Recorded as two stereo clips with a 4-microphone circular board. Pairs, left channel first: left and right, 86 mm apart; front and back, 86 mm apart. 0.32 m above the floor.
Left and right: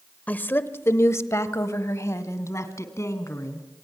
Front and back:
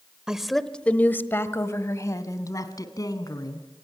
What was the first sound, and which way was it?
A woman speaking, 115° left.